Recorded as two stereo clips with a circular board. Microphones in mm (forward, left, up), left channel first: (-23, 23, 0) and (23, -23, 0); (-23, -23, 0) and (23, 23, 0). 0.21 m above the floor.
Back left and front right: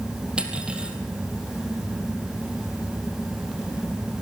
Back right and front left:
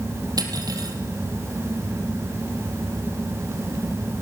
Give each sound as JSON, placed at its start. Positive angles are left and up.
{"t": 0.4, "sound": "cutlery clinking", "azimuth_deg": 30, "distance_m": 3.5}